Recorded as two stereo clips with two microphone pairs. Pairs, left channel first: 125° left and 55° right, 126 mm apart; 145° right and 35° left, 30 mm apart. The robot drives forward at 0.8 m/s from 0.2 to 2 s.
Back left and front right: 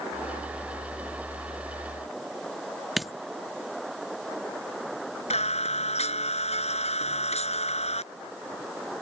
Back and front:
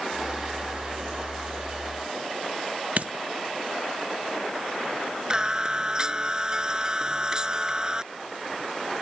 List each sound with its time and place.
3.0 s a dropped coin: 35° left
5.3 s singing: 95° left